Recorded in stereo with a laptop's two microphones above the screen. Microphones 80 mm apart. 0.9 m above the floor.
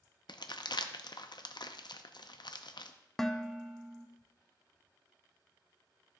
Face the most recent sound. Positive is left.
turn(degrees=5)  # may be behind; listen again after turning